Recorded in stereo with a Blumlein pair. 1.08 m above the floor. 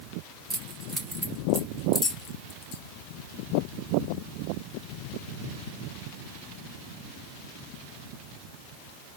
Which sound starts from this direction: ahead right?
Keys jangling, at 0.5 s.